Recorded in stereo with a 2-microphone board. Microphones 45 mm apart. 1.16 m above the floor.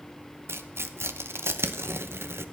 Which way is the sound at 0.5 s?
75° right (ahead or behind).